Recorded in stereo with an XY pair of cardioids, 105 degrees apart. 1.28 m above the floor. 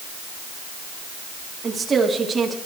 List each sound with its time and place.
1.6 s a woman speaking: 35° right, 3.5 m